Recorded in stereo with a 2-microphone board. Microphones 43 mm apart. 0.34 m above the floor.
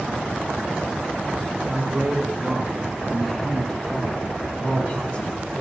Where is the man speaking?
15° right (ahead or behind), 3.5 m; by 5.6 s 40° left (ahead or behind), 3 m.